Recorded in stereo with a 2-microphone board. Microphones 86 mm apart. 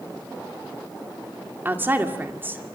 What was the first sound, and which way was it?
A woman speaking, 25° right (ahead or behind).